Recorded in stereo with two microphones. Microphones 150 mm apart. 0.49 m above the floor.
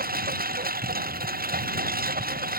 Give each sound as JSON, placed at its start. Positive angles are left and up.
{"t": 0.0, "sound": "a lawn mower", "side_deg": -75}